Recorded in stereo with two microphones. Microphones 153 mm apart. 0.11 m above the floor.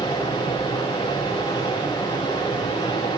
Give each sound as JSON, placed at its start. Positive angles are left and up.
{"t": 0.0, "sound": "running water", "side_deg": 25, "distance_m": 8.0}